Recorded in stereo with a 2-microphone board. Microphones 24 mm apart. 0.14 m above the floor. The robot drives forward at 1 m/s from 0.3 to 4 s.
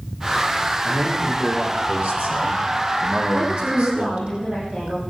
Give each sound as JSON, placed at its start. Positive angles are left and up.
{"t": 0.8, "sound": "a man speaking", "side_deg": -60, "distance_m": 5.0}
{"t": 3.3, "sound": "a woman speaking", "side_deg": -60, "distance_m": 6.0}